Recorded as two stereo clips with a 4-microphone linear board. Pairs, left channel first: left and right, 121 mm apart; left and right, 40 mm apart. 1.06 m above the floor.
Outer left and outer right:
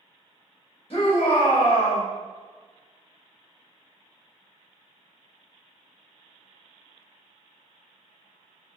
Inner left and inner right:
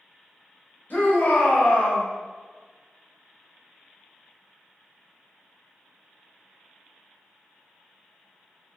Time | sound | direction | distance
0.9 | a shout | 50° left (ahead or behind) | 1.5 m